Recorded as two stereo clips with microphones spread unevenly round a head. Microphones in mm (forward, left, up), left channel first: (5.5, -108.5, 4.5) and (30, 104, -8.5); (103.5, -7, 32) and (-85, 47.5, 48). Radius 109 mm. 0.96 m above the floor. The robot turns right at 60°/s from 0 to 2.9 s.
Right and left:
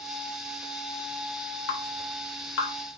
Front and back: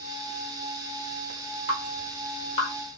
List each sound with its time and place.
1.7 s dripping: 130° right, 2.0 m; by 2.7 s 65° right, 2.0 m